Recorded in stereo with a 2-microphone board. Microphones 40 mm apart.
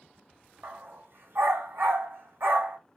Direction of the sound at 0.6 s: 65° right (ahead or behind).